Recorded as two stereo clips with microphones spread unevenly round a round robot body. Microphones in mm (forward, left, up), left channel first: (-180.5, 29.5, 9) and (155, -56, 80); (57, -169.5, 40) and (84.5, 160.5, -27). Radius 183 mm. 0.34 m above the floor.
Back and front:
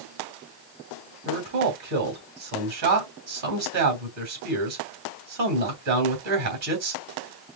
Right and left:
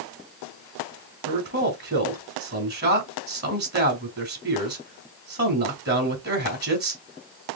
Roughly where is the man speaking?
Ahead left.